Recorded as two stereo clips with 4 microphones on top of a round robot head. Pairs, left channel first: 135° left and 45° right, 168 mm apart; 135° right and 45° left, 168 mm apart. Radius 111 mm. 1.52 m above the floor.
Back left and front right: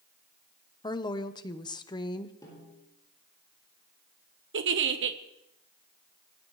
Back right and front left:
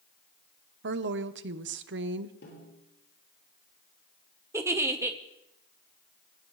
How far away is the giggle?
About 1.1 m.